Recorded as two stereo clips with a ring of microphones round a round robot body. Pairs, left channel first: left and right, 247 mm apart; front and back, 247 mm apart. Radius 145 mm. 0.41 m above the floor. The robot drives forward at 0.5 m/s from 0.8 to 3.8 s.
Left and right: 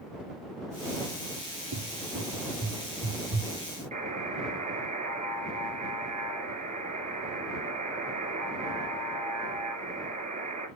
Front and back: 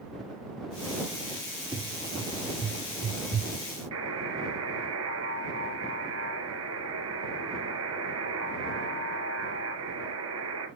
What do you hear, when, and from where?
1.7 s a cupboard door: 105° right, 4.5 m; by 3.5 s 115° right, 5 m
3.9 s a buzzer: 150° right, 2.5 m